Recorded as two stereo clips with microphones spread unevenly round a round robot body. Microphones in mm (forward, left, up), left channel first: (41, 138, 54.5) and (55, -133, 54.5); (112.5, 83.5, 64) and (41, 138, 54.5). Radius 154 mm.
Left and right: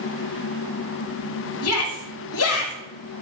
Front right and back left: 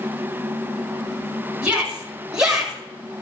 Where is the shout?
65° left, 5.5 m; by 2.7 s 60° left, 5 m.